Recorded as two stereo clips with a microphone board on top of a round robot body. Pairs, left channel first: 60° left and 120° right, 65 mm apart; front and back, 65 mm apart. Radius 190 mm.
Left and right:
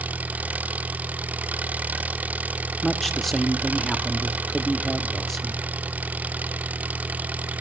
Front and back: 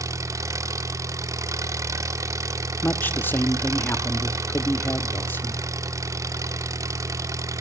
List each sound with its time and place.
0.0 s an engine running: straight behind, 1.5 m
2.8 s a man speaking: 25° right, 1.5 m